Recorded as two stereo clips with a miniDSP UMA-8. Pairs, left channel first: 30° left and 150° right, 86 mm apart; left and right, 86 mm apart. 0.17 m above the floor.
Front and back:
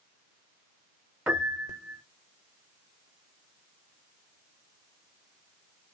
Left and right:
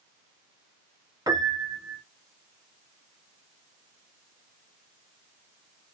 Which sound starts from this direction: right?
A piano, at 1.3 s.